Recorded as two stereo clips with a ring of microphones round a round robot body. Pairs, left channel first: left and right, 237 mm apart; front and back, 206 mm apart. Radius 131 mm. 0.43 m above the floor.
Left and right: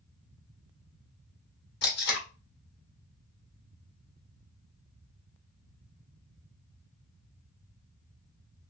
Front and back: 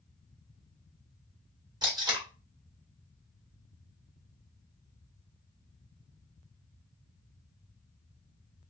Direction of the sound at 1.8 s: 115° left.